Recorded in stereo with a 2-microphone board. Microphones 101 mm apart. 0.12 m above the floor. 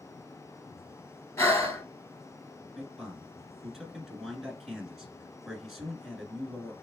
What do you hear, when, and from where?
1.4 s breathing: 35° left (ahead or behind), 1.4 m
2.8 s a man speaking: centre (ahead or behind), 1.2 m